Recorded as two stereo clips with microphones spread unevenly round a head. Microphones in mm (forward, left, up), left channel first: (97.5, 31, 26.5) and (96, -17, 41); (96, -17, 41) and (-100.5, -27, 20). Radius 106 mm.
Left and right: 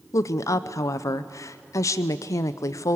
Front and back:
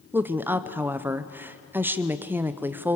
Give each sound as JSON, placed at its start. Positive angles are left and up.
{"t": 0.1, "sound": "a woman speaking", "azimuth_deg": 100, "distance_m": 0.7}